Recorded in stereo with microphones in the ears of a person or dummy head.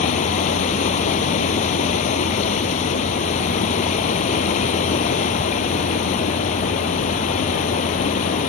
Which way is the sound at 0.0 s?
40° left (ahead or behind).